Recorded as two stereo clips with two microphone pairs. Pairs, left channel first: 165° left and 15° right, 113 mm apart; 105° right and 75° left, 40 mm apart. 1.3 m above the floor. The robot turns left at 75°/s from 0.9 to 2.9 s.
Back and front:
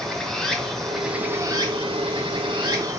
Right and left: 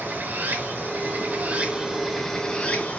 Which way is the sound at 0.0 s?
80° left.